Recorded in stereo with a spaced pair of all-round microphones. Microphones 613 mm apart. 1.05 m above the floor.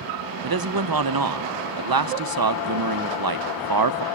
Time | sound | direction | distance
0.4 | a man speaking | 35° right (ahead or behind) | 0.7 m